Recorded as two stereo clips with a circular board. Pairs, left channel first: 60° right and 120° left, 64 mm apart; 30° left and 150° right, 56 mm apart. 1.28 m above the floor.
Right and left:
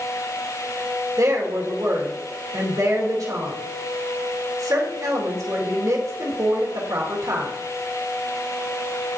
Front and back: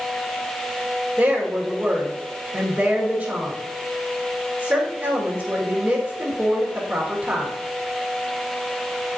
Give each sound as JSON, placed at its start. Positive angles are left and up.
{"t": 1.2, "sound": "a woman speaking", "azimuth_deg": 145, "distance_m": 2.0}